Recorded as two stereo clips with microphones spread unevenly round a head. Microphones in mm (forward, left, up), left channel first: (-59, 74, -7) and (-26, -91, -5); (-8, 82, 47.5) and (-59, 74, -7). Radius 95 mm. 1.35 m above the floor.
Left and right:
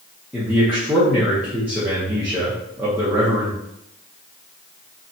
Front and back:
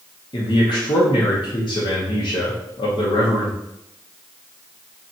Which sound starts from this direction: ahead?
A man speaking, at 0.3 s.